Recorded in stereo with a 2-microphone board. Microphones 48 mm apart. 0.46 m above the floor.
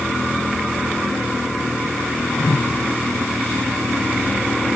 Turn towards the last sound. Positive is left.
turn(degrees=75)  # may be behind; listen again after turning